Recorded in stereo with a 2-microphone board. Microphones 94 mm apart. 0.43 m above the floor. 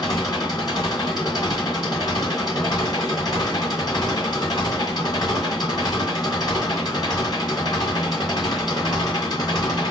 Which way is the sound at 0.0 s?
45° left (ahead or behind).